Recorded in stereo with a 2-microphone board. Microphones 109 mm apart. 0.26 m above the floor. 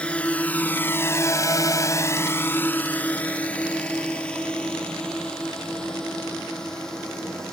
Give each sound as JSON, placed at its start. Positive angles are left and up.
{"t": 0.0, "sound": "a drone", "side_deg": 10}